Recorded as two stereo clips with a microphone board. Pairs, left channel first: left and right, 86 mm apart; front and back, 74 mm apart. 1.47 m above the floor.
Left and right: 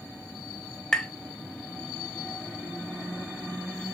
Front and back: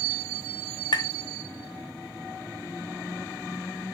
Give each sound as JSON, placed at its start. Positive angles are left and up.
{"t": 0.9, "sound": "tapping", "azimuth_deg": 10, "distance_m": 1.4}